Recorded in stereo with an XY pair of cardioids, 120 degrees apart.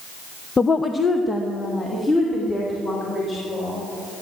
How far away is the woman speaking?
About 0.5 m.